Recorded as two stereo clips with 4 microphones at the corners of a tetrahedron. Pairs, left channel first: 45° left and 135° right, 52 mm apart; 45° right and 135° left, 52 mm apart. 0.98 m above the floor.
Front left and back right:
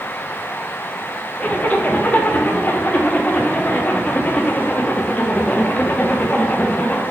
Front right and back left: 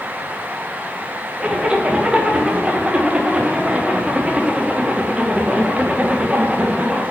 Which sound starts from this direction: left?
A zipper, at 1.4 s.